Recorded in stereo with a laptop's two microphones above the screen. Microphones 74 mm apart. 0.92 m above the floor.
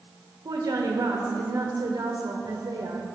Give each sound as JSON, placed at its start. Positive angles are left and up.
{"t": 0.5, "sound": "a woman speaking", "side_deg": -65, "distance_m": 1.1}